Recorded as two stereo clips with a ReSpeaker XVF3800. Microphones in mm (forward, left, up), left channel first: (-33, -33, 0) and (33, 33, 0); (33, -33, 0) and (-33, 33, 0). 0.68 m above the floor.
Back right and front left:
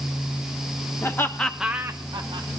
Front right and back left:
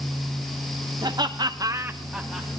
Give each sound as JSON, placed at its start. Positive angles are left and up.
{"t": 1.0, "sound": "laughter", "azimuth_deg": 170, "distance_m": 1.4}